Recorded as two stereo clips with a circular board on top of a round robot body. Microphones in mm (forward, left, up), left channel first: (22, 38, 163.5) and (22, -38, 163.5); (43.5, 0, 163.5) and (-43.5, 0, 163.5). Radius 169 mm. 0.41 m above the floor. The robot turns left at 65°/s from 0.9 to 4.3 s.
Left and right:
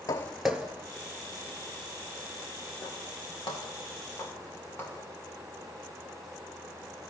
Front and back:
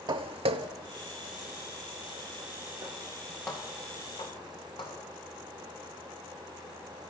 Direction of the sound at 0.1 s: 145° left.